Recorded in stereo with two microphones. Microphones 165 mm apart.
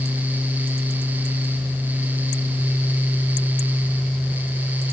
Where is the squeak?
I don't hear a squeak.